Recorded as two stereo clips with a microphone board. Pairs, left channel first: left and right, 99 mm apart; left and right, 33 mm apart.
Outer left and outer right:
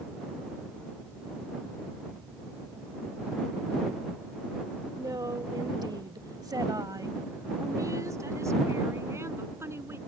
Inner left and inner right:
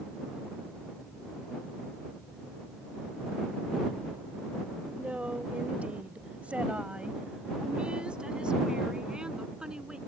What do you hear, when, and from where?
5.0 s a woman speaking: 35° right (ahead or behind); by 10.0 s 25° right (ahead or behind)